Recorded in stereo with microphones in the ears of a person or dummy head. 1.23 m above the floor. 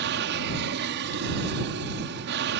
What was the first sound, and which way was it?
An aircraft, 60° right (ahead or behind).